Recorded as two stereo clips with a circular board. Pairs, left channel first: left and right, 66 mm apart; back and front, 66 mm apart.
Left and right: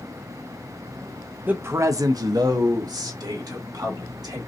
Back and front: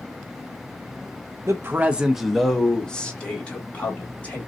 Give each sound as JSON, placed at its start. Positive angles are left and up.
{"t": 1.5, "sound": "a man speaking", "azimuth_deg": -30, "distance_m": 0.6}